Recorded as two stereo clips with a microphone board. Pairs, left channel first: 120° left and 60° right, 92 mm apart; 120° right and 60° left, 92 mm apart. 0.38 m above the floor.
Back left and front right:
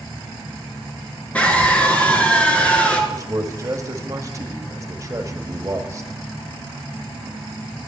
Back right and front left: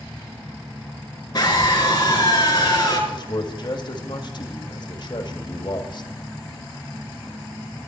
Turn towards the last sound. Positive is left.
turn(degrees=-105)